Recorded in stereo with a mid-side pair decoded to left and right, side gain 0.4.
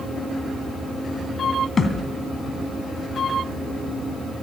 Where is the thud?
40° left, 2.5 m.